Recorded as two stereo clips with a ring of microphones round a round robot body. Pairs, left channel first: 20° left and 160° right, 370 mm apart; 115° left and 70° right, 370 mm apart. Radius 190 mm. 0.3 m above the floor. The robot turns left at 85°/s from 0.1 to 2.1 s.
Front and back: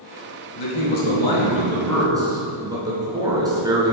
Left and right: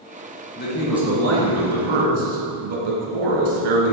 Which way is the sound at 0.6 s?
55° left.